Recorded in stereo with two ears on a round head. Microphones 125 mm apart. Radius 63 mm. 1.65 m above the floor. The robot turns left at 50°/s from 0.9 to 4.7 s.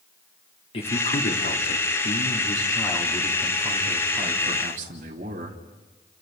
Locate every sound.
0.7 s a man speaking: 135° left, 3 m; by 5.6 s 55° right, 3 m